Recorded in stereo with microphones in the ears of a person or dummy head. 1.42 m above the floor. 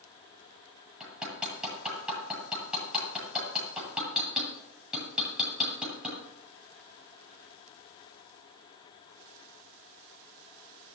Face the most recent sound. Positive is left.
turn(degrees=-10)  # may be behind; listen again after turning